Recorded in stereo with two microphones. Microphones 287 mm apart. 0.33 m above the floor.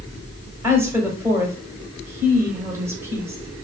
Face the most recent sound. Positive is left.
turn(degrees=-10)  # may be behind; listen again after turning